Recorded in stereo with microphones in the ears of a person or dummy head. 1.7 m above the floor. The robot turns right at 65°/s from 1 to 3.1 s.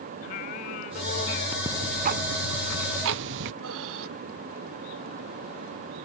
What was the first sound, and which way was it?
Singing, 80° left.